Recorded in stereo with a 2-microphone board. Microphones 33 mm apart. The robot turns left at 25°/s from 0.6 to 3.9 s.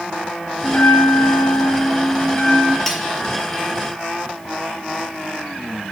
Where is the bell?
70° left, 7.5 m; by 2.8 s 15° left, 7.5 m.